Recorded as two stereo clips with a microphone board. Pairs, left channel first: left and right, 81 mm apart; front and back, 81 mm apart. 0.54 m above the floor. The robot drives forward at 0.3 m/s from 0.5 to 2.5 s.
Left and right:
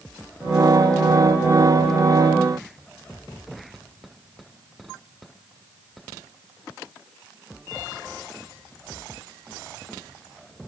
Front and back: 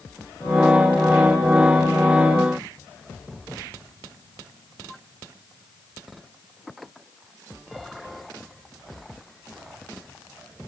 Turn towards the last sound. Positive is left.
No sound to turn to.